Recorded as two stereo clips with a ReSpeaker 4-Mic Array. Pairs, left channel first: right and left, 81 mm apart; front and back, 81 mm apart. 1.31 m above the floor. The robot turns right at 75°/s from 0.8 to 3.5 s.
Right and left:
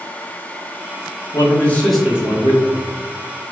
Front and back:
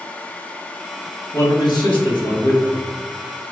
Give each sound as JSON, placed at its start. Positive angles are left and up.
{"t": 1.3, "sound": "a man speaking", "azimuth_deg": -50, "distance_m": 1.5}